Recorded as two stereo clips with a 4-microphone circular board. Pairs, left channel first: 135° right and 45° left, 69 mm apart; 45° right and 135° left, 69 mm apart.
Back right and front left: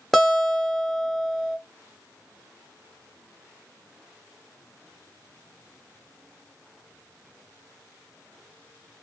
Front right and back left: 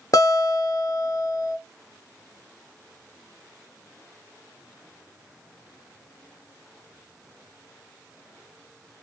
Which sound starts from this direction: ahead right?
A guitar, at 0.1 s.